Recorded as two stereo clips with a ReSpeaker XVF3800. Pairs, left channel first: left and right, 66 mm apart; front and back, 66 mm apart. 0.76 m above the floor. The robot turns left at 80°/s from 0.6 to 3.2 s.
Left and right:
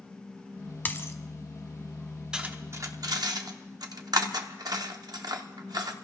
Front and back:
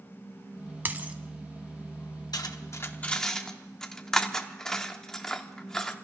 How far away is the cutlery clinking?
About 0.8 m.